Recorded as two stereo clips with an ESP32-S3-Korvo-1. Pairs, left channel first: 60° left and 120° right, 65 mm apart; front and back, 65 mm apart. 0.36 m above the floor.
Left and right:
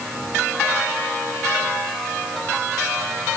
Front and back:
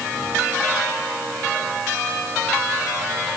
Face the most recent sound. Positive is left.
No sound to turn to.